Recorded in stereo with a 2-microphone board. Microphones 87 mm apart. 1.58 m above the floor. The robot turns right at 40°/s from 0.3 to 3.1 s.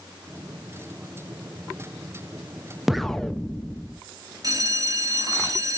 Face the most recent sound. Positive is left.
turn(degrees=-45)  # may be behind; listen again after turning